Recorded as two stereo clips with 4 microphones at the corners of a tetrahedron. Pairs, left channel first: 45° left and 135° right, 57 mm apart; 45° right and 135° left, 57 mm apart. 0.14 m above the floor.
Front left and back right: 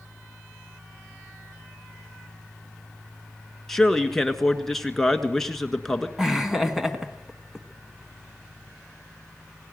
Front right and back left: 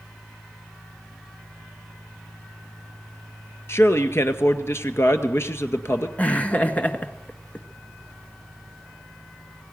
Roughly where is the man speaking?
Ahead right.